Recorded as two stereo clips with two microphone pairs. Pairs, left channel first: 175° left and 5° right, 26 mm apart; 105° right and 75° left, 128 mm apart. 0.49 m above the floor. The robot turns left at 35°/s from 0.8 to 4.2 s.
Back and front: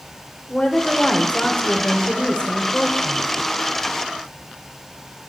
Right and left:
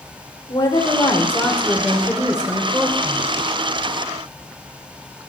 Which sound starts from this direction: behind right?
A woman speaking, at 0.5 s.